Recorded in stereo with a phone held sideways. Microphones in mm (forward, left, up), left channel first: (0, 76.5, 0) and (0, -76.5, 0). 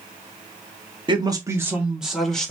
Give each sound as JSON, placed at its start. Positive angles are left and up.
{"t": 1.1, "sound": "a man speaking", "side_deg": -30, "distance_m": 0.9}